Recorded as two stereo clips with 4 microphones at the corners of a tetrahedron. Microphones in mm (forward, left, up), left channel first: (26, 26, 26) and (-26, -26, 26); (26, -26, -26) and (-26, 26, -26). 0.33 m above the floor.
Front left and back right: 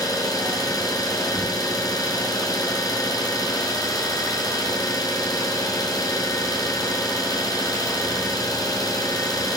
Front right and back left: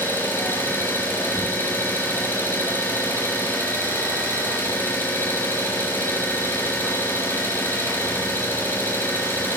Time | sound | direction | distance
0.0 | an engine running | 15° left | 3 m